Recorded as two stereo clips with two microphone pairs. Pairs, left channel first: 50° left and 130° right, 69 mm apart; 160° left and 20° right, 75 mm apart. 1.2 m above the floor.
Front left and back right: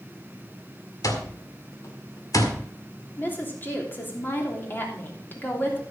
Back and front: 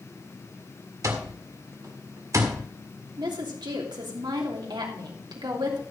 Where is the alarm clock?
20° left, 1.8 m.